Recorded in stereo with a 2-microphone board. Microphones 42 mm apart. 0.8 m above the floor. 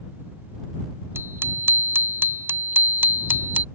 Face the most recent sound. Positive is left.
turn(degrees=-50)  # may be behind; listen again after turning